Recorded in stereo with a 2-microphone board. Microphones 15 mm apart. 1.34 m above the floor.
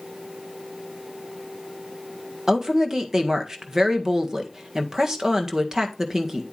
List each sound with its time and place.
2.5 s a woman speaking: 30° right (ahead or behind), 1.6 m